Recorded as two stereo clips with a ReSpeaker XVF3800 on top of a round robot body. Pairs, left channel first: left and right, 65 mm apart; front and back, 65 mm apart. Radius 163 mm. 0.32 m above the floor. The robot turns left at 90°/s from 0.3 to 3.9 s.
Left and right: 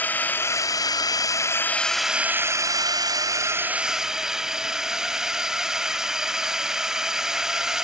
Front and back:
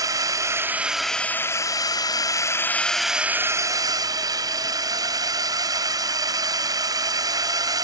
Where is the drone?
155° left; by 7.8 s 170° right.